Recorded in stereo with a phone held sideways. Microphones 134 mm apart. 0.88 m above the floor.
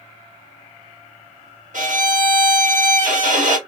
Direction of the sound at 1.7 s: 70° right (ahead or behind).